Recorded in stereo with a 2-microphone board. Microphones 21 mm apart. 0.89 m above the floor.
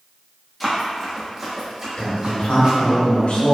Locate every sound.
0.6 s running footsteps: centre (ahead or behind), 1.3 m; by 2.8 s 45° right (ahead or behind), 1.5 m
2.0 s a man speaking: 70° left (ahead or behind), 1.6 m